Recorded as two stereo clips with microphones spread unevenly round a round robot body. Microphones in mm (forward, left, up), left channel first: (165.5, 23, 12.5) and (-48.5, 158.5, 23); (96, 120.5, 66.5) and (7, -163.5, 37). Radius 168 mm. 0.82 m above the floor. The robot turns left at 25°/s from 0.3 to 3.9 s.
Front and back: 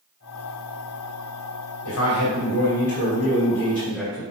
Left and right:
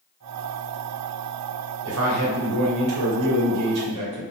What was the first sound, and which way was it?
A man speaking, 70° right.